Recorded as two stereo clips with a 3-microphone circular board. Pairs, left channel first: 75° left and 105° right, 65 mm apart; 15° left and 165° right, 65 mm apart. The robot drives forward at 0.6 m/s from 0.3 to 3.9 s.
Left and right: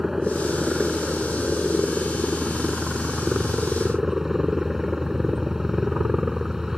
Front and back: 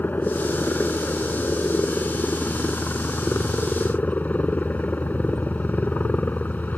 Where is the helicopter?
20° right; by 6.8 s 25° right.